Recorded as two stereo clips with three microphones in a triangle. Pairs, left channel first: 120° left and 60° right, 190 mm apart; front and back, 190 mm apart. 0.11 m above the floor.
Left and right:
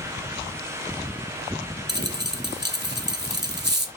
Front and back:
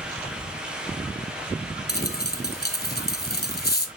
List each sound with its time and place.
1.9 s a dropped coin: 35° right, 0.9 m